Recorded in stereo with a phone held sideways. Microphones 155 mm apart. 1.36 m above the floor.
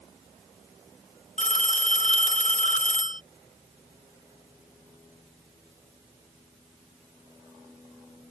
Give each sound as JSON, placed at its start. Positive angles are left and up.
{"t": 1.4, "sound": "a phone ringing", "side_deg": 55}